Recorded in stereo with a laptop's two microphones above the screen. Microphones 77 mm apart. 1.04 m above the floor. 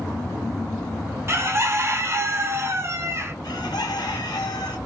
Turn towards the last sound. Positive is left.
turn(degrees=65)  # may be behind; listen again after turning